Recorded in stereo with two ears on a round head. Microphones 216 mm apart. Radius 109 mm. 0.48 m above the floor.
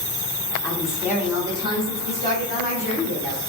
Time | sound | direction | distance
0.6 | a woman speaking | 5° left (ahead or behind) | 1.1 m